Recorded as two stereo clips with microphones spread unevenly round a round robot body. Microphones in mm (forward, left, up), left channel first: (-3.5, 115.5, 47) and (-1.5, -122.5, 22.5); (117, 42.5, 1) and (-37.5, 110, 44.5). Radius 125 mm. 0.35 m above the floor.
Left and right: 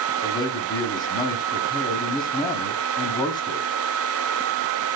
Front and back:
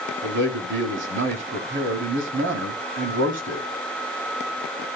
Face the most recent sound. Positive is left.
turn(degrees=165)